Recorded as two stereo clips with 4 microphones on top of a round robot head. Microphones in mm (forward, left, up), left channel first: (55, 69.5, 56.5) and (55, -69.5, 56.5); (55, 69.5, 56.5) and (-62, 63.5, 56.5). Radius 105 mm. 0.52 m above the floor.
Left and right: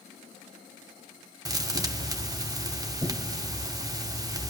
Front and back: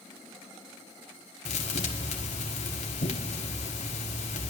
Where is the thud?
25° right, 1.0 m.